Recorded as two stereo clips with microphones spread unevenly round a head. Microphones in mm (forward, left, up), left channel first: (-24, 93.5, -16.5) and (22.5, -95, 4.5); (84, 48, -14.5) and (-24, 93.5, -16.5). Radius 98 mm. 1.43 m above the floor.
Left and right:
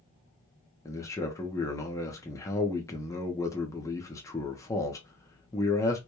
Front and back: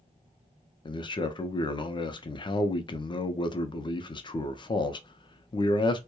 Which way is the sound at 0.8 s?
30° left.